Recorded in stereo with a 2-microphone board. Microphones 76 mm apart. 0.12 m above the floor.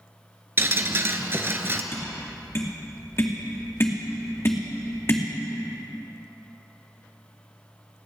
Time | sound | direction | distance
0.6 | dripping | 35° right (ahead or behind) | 0.9 m
1.9 | tapping | 35° left (ahead or behind) | 2 m